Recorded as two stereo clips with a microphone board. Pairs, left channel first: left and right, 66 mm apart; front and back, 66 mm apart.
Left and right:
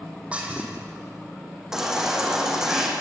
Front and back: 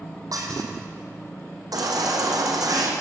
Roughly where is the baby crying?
Behind.